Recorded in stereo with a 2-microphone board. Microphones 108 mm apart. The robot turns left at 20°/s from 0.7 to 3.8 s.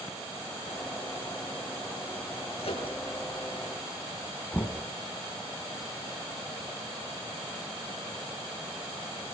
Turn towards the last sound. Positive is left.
turn(degrees=15)  # may be behind; listen again after turning